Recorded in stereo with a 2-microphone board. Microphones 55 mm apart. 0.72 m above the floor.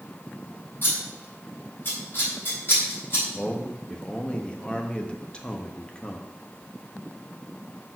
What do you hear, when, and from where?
0.8 s scissors: 45° left (ahead or behind), 4.5 m
3.4 s a man speaking: 25° left (ahead or behind), 0.9 m